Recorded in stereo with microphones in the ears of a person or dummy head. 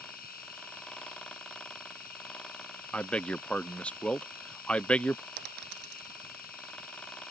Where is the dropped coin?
55° right (ahead or behind).